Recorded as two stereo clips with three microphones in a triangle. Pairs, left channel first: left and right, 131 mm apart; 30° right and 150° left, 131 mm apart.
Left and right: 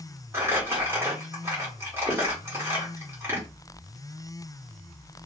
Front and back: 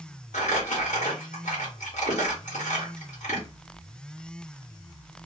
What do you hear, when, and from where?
0.3 s crumpling: 20° right, 1.2 m